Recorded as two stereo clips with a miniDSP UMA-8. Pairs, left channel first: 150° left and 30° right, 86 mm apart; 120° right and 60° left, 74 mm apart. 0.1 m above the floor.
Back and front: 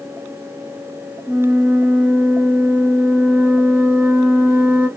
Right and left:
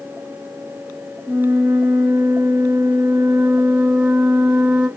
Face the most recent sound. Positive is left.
turn(degrees=-20)